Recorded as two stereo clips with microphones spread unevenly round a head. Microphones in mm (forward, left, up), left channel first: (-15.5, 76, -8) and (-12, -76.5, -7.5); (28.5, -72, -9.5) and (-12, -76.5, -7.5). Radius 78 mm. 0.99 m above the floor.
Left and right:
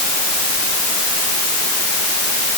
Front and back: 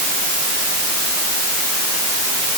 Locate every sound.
Only background noise.